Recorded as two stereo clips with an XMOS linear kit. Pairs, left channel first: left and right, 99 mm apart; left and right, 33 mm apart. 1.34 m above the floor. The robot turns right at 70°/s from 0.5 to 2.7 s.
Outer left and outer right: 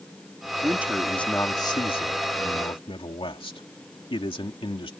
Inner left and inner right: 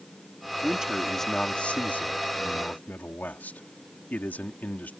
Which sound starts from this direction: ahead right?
A man speaking, at 0.6 s.